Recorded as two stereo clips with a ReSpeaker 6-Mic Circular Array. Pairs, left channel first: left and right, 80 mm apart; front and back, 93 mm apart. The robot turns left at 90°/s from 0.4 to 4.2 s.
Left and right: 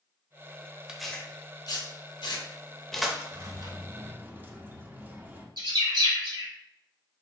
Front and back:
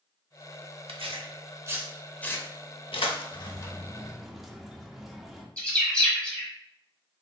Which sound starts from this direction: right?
A bird, at 5.6 s.